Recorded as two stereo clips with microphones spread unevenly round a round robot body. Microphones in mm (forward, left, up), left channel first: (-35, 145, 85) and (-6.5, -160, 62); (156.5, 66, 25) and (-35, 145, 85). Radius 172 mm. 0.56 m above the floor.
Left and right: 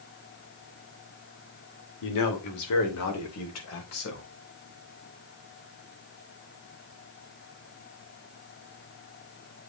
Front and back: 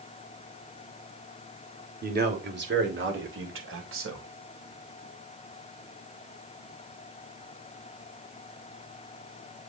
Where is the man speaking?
105° left, 2.5 m; by 4.3 s 140° left, 4 m.